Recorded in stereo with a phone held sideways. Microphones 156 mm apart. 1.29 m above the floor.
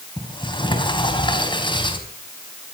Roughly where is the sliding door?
Left.